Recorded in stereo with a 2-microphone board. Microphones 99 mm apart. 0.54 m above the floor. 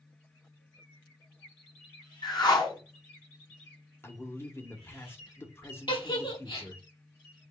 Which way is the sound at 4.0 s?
25° left (ahead or behind).